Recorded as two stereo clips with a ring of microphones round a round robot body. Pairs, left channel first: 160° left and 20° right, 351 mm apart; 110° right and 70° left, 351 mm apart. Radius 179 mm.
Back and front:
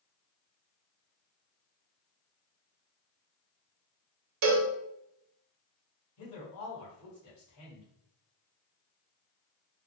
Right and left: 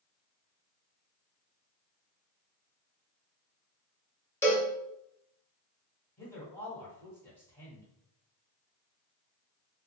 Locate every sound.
4.4 s a cowbell: 30° right, 0.9 m
6.2 s a man speaking: 165° left, 1.9 m